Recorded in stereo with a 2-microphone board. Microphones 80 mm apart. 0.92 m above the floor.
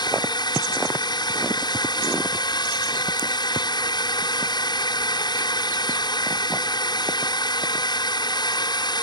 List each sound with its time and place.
0.0 s a drone: 60° left (ahead or behind)